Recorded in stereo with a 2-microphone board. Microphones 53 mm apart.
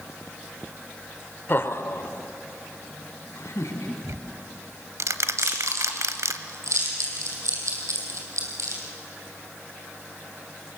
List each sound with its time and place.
1.5 s laughter: 45° left (ahead or behind), 1.1 m; by 3.9 s 75° left (ahead or behind), 3.5 m
4.0 s ticking: 80° right, 1.0 m
5.4 s chewing: 75° right (ahead or behind), 4.5 m